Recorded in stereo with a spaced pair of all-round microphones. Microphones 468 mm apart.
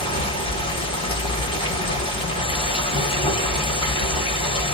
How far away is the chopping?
No chopping in this recording.